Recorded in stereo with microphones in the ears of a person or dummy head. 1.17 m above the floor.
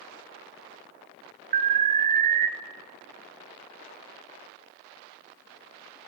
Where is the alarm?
35° right (ahead or behind), 0.6 m.